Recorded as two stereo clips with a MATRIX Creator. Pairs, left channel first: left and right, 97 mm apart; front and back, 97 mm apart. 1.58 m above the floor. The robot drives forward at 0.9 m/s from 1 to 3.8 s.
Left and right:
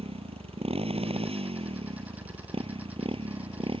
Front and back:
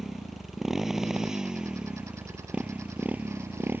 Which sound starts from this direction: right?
A motorcycle, at 0.0 s.